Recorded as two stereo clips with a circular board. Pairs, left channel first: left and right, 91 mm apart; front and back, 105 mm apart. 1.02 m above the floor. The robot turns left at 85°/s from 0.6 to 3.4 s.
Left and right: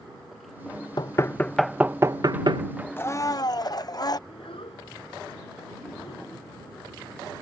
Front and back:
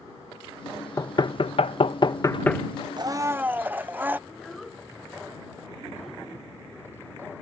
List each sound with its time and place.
1.0 s knocking: 55° left; by 2.6 s 85° right
3.0 s a blender: 150° left; by 4.2 s 110° left
4.3 s a child speaking: 90° left